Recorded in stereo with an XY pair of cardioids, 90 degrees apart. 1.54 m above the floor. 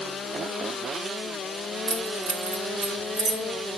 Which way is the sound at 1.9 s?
50° right.